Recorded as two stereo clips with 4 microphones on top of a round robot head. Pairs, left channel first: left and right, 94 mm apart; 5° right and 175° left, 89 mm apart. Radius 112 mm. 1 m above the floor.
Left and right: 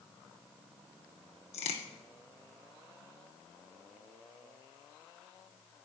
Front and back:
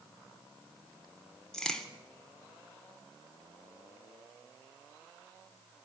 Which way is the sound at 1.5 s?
75° left.